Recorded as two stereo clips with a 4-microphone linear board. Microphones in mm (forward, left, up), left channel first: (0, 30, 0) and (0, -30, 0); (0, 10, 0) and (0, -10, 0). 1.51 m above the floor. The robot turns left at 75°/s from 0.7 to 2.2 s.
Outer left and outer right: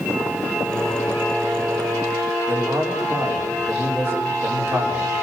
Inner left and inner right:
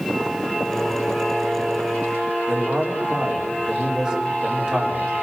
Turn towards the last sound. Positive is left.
turn(degrees=-45)  # may be behind; listen again after turning